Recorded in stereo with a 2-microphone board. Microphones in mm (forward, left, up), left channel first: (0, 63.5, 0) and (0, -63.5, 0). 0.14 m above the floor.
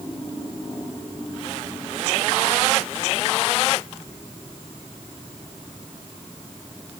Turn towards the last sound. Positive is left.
No sound to turn to.